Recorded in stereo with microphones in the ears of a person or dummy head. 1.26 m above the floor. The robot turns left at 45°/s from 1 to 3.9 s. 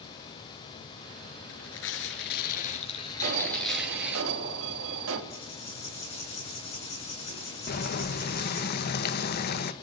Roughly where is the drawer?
I don't hear a drawer.